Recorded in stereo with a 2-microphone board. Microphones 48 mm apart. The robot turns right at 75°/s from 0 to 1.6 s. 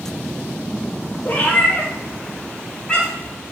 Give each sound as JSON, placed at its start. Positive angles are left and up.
{"t": 1.2, "sound": "a cat meowing", "side_deg": 40, "distance_m": 0.7}